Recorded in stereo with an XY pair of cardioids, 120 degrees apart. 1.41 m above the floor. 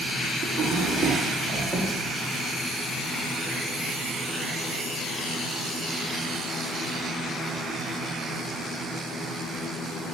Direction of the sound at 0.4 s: 40° right.